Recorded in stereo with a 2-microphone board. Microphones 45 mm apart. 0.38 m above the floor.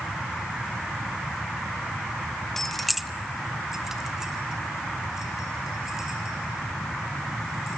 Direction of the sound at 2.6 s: 5° left (ahead or behind).